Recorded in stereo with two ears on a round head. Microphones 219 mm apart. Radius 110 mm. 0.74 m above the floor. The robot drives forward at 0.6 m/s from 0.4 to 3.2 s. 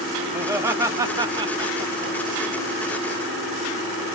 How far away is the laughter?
About 1.0 m.